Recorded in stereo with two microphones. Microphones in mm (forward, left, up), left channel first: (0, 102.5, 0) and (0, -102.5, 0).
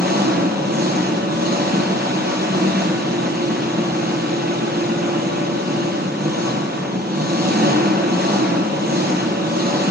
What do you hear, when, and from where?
0.0 s an engine running: 50° right (ahead or behind), 0.9 m